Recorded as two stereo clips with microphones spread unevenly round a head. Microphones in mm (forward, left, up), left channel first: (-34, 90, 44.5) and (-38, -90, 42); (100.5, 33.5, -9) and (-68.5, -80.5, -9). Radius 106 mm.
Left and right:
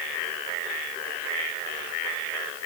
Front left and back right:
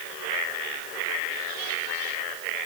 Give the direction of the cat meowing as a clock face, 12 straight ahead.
No cat meowing in this recording.